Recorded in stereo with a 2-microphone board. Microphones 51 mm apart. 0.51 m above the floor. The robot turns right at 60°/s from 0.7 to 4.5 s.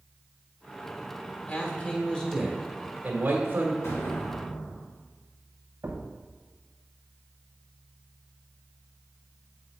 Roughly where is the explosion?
Left.